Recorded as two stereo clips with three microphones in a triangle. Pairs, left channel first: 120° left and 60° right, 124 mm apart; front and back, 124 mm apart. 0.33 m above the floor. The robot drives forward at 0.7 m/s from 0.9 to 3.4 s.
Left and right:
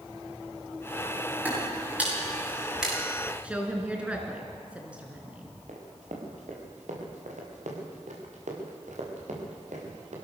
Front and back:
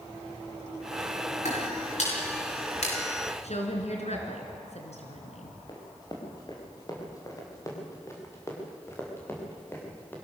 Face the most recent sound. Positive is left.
turn(degrees=-75)